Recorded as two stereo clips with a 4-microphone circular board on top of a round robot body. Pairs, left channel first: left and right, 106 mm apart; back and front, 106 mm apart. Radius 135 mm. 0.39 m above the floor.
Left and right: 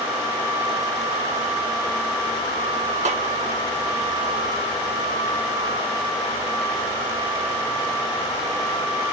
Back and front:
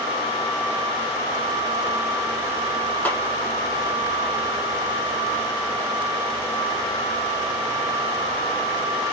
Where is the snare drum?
105° right, 1.3 m.